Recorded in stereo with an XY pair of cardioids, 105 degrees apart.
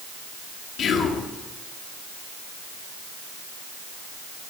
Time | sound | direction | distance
0.8 | whispering | 60° left | 1.8 m